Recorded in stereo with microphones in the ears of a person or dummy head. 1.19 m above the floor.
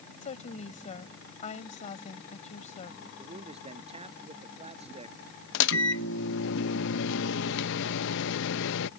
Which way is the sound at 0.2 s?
30° left (ahead or behind).